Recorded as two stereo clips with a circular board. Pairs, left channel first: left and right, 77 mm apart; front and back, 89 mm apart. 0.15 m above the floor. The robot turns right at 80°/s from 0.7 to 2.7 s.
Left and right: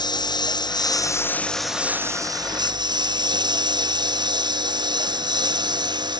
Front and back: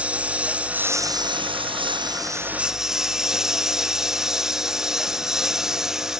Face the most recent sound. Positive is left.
turn(degrees=-95)